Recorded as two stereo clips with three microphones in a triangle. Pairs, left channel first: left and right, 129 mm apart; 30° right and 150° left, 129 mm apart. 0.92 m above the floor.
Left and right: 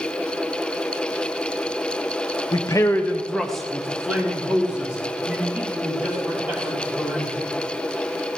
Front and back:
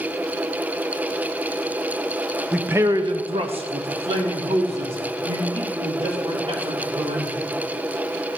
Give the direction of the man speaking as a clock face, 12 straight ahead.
10 o'clock.